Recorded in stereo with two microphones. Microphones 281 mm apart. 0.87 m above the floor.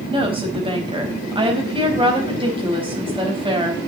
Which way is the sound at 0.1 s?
20° right (ahead or behind).